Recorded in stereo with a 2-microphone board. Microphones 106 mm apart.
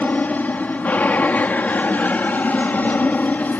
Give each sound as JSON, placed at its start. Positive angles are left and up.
{"t": 0.0, "sound": "an aircraft", "side_deg": 15}